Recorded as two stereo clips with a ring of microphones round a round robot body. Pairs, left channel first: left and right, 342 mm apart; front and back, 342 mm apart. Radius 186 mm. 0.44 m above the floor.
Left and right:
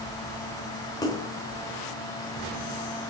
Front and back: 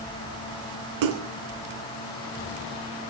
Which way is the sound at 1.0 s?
170° left.